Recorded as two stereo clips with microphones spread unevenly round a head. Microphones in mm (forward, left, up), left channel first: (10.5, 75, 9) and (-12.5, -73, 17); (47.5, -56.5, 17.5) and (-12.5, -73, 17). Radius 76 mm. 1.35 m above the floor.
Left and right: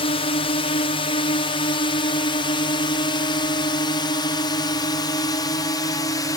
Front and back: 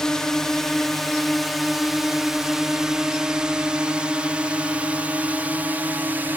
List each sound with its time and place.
0.0 s a drone: 95° left; by 6.4 s 140° left